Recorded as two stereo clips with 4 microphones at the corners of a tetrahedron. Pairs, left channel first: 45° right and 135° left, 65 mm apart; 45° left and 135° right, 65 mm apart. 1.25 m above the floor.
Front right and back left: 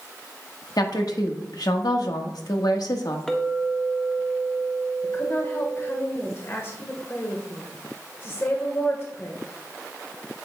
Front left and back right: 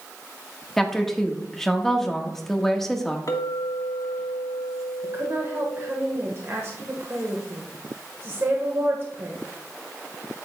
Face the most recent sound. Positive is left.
turn(degrees=-90)